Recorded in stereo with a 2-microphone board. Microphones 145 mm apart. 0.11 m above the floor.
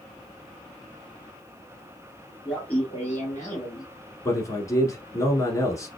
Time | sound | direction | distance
2.5 | laughter | 5° left (ahead or behind) | 1.4 m
4.2 | a man speaking | 20° left (ahead or behind) | 1.2 m